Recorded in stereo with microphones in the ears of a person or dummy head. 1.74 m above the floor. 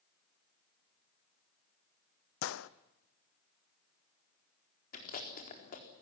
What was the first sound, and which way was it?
A gunshot, 65° left (ahead or behind).